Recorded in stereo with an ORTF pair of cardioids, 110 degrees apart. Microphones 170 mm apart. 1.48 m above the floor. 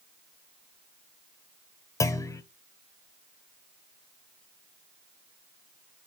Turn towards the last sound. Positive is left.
turn(degrees=20)